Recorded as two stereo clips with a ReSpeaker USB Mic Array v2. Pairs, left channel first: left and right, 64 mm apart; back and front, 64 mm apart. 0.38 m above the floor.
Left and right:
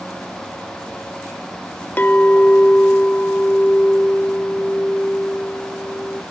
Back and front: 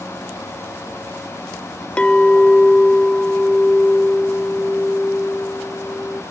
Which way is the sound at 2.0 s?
120° left.